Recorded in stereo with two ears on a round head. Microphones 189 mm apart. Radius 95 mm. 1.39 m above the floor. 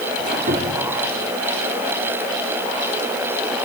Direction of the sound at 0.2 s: 40° right (ahead or behind).